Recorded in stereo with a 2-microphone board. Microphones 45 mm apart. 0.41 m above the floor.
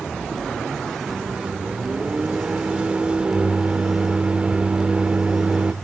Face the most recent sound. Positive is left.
turn(degrees=-25)  # may be behind; listen again after turning